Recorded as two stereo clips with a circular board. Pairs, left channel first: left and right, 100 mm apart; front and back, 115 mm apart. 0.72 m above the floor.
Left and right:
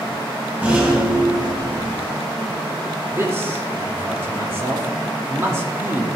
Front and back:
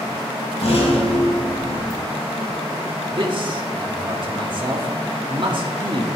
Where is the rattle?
20° right, 3 m.